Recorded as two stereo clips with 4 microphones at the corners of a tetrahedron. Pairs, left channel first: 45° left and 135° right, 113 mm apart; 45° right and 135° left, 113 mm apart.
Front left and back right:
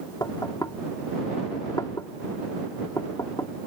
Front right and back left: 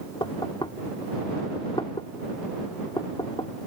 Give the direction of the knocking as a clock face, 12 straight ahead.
12 o'clock.